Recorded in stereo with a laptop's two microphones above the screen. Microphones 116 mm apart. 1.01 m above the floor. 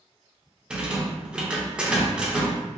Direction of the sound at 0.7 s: 10° right (ahead or behind).